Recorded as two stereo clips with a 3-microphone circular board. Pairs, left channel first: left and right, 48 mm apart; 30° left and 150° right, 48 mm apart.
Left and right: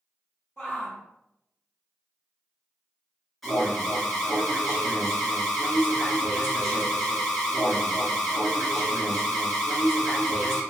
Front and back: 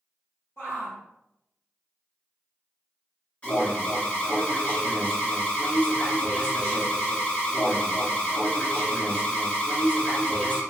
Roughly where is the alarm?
Ahead.